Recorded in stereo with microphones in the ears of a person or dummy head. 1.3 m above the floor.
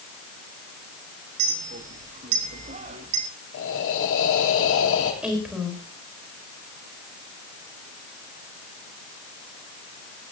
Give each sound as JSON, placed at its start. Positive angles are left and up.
{"t": 1.4, "sound": "a clink", "side_deg": -40, "distance_m": 1.3}
{"t": 3.5, "sound": "breathing", "side_deg": 75, "distance_m": 3.5}
{"t": 5.2, "sound": "a woman speaking", "side_deg": -5, "distance_m": 4.5}